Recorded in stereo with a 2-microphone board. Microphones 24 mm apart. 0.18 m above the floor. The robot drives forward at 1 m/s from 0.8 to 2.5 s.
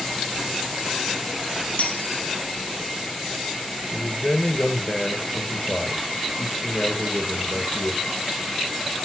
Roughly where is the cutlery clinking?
Left.